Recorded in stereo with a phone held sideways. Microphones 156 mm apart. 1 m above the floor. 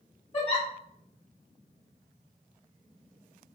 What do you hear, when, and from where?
0.3 s a giggle: 35° left (ahead or behind), 0.9 m